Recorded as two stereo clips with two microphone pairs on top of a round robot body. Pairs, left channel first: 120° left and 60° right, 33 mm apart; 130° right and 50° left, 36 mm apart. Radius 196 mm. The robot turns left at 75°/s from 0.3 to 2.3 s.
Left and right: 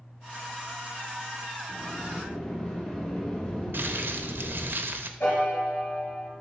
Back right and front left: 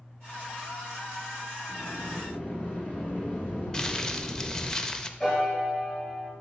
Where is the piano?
155° left, 2.5 m.